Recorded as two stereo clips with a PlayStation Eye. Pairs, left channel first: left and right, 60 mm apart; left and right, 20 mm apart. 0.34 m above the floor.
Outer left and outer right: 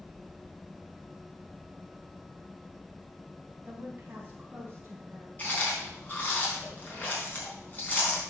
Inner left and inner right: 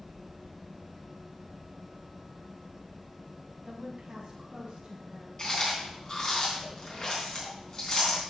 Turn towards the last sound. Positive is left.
turn(degrees=30)  # may be behind; listen again after turning